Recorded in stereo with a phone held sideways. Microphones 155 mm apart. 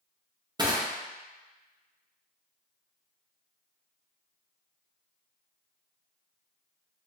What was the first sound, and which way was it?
Crushing, 30° right (ahead or behind).